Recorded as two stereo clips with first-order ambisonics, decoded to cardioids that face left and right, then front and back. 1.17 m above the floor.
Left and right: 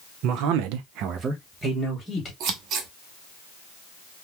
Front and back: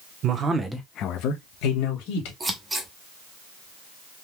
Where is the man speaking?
125° right, 0.9 m; by 2.3 s straight ahead, 1.8 m.